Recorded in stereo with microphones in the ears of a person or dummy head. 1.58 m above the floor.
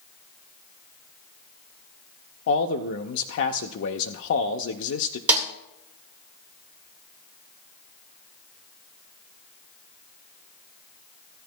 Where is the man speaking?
70° left (ahead or behind), 0.6 m.